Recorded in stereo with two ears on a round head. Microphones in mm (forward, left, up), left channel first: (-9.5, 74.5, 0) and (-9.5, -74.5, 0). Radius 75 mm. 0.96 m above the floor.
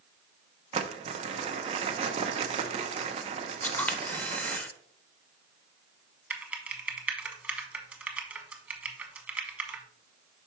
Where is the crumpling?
35° right (ahead or behind), 0.7 m.